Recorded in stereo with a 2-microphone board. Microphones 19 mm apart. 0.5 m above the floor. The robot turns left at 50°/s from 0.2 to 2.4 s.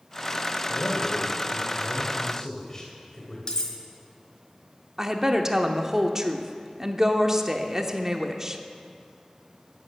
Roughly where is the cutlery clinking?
Left.